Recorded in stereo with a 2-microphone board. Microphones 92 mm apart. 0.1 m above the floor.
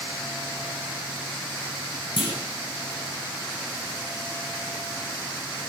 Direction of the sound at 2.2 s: 60° left (ahead or behind).